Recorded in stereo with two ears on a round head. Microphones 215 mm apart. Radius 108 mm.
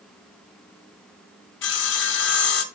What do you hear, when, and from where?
1.6 s sawing: 50° left (ahead or behind), 1.0 m